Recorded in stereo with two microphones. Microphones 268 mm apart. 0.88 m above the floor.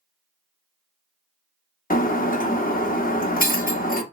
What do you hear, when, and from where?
1.9 s breaking glass: 30° left (ahead or behind), 0.8 m